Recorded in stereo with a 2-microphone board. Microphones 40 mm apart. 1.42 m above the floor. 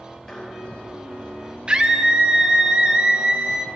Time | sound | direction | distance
0.3 | dishes clattering | 15° left (ahead or behind) | 4 m
1.7 | a scream | 25° right (ahead or behind) | 0.5 m